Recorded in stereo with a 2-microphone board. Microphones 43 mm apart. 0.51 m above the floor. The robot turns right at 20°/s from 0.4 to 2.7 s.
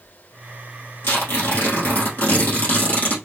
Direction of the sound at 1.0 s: 95° left.